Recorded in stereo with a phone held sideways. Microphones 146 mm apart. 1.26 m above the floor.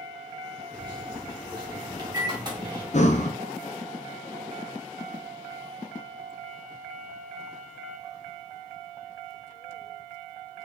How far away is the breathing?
About 0.6 m.